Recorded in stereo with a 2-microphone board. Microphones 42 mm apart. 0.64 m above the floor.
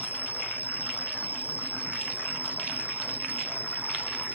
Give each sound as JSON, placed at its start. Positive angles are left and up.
{"t": 0.0, "sound": "an insect", "side_deg": -45}